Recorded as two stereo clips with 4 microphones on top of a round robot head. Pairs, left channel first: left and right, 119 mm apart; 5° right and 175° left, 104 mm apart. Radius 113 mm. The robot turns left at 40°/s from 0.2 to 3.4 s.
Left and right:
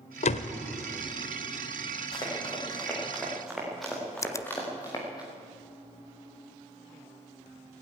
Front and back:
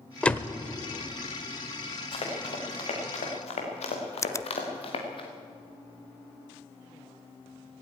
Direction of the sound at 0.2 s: 75° left.